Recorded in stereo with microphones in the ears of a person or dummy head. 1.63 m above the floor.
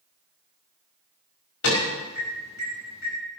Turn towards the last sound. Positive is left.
turn(degrees=85)